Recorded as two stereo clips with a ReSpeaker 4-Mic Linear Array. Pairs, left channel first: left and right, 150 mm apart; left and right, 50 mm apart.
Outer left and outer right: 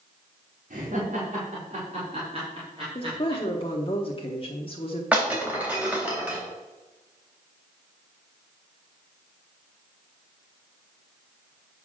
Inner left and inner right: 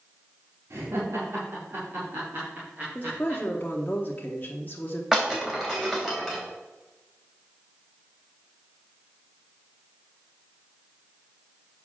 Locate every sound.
0.7 s laughter: 60° right (ahead or behind), 2.5 m; by 3.4 s 35° right (ahead or behind), 3 m
3.0 s a woman speaking: 40° left (ahead or behind), 1.0 m
5.1 s breaking glass: 10° right (ahead or behind), 3 m